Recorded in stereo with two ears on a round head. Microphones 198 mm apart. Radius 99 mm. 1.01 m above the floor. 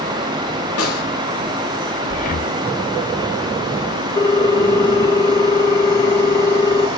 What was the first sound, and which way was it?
A snare drum, 80° left.